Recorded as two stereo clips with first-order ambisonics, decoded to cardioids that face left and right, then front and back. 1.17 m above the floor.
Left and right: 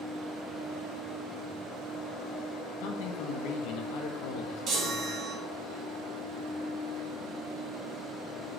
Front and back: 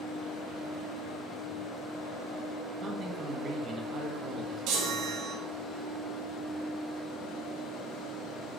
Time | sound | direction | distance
2.8 | a man speaking | 110° left | 0.9 m
4.7 | a chime | 145° right | 1.3 m